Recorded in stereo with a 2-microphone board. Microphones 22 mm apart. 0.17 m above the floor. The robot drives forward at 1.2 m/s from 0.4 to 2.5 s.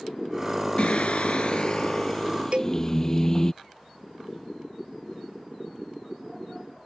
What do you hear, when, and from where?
0.8 s singing: 55° left (ahead or behind); by 3.5 s 25° left (ahead or behind)
2.5 s a cowbell: 55° right (ahead or behind)